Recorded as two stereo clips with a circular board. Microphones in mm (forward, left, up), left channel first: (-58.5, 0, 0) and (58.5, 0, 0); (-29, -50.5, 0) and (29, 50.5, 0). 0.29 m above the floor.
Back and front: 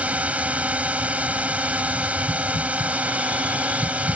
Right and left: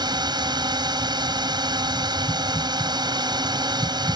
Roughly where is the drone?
Left.